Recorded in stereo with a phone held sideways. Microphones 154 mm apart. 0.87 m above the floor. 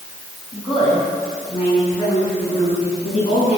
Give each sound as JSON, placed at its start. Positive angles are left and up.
{"t": 0.5, "sound": "a woman speaking", "side_deg": 35, "distance_m": 6.0}